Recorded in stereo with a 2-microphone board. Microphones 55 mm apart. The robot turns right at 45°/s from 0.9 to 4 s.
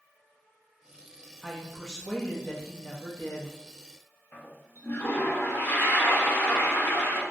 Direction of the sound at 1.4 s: 5° right.